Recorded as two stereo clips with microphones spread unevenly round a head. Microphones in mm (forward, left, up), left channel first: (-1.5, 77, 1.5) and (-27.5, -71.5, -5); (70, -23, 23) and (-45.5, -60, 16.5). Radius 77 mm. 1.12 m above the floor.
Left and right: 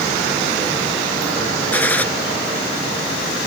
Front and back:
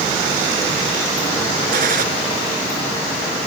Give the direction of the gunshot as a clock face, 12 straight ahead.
7 o'clock.